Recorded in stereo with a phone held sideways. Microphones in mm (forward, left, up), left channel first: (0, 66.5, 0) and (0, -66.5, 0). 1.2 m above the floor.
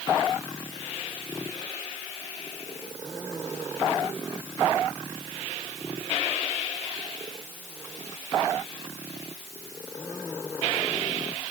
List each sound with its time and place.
Only background noise.